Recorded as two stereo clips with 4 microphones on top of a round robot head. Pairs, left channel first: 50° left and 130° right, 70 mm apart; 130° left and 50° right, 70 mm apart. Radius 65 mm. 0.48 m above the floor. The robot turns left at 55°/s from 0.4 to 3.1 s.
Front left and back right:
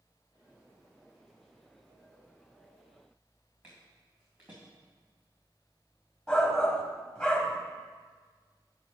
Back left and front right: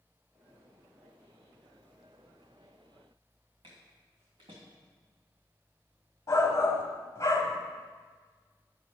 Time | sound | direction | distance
3.6 | footsteps | 60° right | 3 m
6.3 | a shout | 135° left | 1.0 m